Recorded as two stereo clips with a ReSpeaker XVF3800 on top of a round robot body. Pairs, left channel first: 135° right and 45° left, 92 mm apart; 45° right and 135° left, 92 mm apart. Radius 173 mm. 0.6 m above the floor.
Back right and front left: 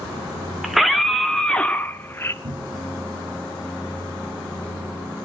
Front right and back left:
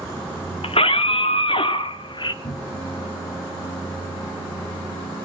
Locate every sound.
0.6 s a scream: 40° right, 2.5 m; by 2.3 s 75° right, 1.7 m
2.4 s a cupboard door: 5° left, 2.5 m